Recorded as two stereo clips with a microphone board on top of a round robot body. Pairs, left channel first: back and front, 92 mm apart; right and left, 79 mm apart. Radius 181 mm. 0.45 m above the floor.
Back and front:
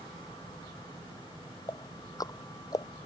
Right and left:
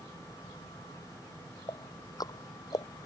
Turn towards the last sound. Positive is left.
turn(degrees=-130)